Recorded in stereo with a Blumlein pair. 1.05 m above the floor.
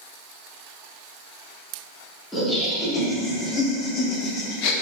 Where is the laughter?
5° left, 1.9 m; by 4.7 s 45° left, 0.8 m.